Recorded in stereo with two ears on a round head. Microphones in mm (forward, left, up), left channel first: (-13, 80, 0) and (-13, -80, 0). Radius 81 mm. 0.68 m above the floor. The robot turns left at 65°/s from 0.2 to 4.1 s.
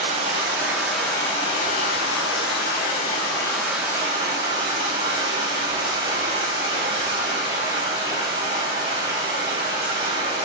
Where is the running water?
130° right, 4 m; by 10.5 s 25° right, 4 m.